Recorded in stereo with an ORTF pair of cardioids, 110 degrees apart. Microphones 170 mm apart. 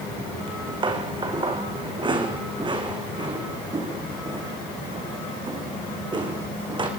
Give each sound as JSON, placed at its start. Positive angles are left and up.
{"t": 0.5, "sound": "footsteps", "azimuth_deg": -30, "distance_m": 5.0}